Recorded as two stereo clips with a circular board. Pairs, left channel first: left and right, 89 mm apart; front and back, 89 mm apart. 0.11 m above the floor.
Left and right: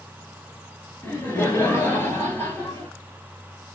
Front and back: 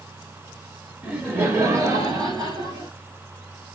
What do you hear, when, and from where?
1.0 s laughter: 125° left, 1.1 m; by 2.9 s 155° left, 1.9 m